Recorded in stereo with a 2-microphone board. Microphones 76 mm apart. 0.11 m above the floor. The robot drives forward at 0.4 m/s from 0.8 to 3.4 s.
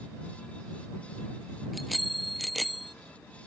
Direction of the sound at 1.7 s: Centre (ahead or behind).